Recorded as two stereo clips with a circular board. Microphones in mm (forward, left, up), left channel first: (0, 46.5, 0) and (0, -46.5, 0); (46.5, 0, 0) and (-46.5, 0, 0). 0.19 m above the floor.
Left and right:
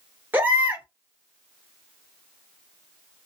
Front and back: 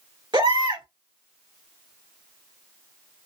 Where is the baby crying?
155° right, 1.9 m.